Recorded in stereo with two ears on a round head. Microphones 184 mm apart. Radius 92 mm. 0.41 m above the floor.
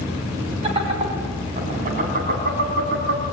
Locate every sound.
0.6 s laughter: 30° right (ahead or behind), 3.5 m; by 3.2 s 55° right (ahead or behind), 4 m